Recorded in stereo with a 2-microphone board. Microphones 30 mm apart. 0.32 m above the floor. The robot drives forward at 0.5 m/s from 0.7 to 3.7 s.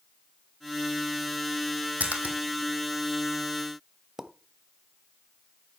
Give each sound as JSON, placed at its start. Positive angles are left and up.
{"t": 2.0, "sound": "a splash", "side_deg": -55, "distance_m": 2.5}
{"t": 4.2, "sound": "a pop", "side_deg": -15, "distance_m": 1.1}